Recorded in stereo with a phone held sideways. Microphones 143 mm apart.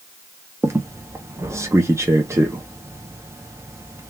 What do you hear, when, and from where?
0.6 s a squeak: 20° right (ahead or behind), 0.5 m